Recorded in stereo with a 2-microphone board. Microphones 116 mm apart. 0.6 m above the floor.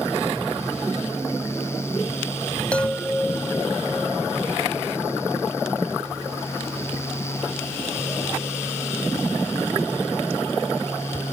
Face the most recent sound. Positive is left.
turn(degrees=10)  # may be behind; listen again after turning